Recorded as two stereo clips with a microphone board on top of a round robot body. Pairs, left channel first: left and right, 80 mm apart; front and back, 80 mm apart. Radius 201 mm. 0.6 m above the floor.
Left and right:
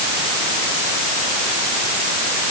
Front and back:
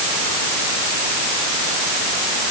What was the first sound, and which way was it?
Only background noise.